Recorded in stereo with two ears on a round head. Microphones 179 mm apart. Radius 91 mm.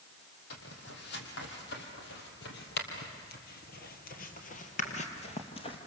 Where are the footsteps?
60° left (ahead or behind), 4 m; by 5.8 s 30° left (ahead or behind), 2.5 m.